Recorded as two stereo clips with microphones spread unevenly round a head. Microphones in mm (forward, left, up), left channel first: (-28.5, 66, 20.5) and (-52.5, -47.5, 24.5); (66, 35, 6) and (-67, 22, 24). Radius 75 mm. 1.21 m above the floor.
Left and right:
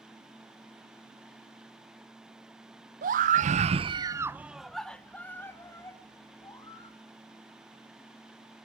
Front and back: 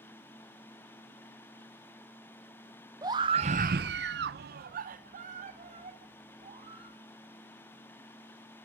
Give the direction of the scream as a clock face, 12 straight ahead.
3 o'clock.